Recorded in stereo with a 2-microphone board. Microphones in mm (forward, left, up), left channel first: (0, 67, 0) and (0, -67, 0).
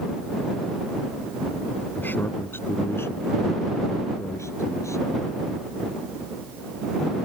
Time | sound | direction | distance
2.0 | a man speaking | 15° left (ahead or behind) | ?